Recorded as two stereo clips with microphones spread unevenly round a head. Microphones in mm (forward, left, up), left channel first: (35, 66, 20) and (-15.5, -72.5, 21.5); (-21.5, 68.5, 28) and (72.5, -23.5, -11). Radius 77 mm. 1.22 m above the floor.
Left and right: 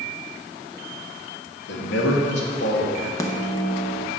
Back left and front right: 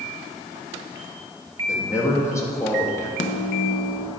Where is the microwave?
140° left, 0.8 m.